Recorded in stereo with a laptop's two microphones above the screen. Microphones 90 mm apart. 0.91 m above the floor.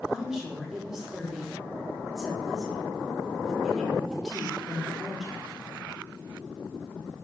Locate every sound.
0.1 s a woman speaking: 5° right (ahead or behind), 1.8 m